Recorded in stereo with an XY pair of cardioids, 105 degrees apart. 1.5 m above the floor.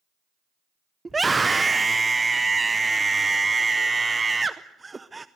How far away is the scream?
About 0.7 m.